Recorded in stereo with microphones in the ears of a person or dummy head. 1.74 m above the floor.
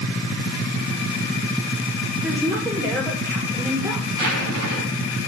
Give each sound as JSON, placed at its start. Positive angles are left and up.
{"t": 2.2, "sound": "a woman speaking", "side_deg": -15, "distance_m": 4.5}
{"t": 4.1, "sound": "a zipper", "side_deg": -80, "distance_m": 3.5}